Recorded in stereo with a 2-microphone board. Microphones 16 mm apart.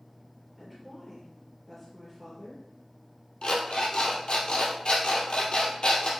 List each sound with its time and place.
0.6 s a woman speaking: 10° left (ahead or behind), 3 m
3.4 s an alarm clock: 65° left (ahead or behind), 2 m